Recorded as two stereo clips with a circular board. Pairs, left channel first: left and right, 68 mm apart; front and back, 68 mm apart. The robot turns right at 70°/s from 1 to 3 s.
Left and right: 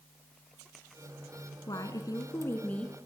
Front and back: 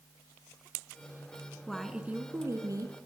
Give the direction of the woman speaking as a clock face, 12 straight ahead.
9 o'clock.